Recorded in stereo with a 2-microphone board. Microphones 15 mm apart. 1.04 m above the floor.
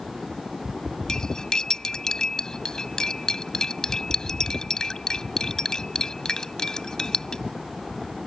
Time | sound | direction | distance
1.1 | cutlery clinking | 50° left (ahead or behind) | ?